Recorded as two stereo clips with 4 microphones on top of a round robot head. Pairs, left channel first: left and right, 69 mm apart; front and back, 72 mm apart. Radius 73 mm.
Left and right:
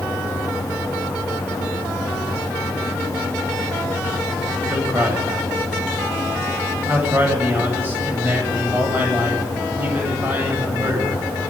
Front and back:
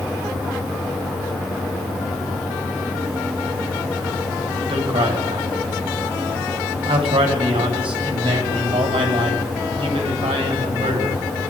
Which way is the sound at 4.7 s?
160° right.